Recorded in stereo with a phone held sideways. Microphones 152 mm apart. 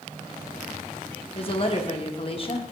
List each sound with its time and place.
1.4 s a woman speaking: 40° left (ahead or behind), 0.8 m